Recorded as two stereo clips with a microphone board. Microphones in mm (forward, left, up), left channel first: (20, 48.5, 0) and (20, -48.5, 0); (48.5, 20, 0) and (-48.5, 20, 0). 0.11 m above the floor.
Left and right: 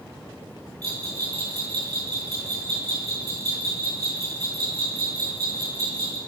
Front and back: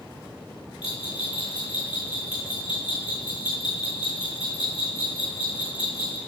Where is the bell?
35° right, 4 m.